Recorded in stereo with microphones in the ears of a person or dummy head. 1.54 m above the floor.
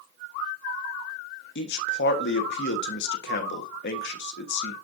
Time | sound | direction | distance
1.6 | a man speaking | 60° left (ahead or behind) | 1.2 m